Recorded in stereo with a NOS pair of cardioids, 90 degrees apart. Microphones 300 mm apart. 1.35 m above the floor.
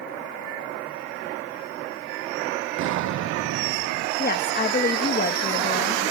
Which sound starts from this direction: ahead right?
An explosion, at 2.8 s.